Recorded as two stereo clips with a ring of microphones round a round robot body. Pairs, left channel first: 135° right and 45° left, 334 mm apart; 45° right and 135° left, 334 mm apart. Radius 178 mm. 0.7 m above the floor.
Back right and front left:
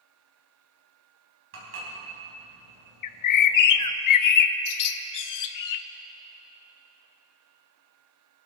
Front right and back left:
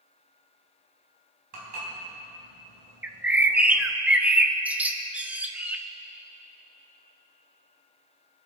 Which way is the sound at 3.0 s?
140° right.